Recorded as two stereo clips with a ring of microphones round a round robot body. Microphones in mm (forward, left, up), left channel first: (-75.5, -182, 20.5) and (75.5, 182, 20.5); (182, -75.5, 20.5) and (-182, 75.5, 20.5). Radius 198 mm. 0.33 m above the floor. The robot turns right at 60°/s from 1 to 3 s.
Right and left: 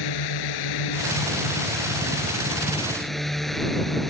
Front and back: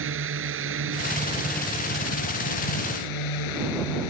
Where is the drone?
145° right; by 4.1 s 25° right.